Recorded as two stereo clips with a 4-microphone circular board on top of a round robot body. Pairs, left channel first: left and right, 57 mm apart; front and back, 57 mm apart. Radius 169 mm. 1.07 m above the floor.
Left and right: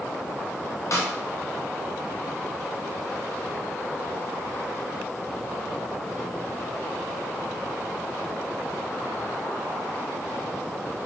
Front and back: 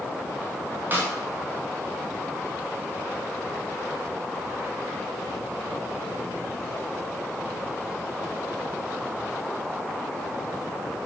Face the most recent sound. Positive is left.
turn(degrees=120)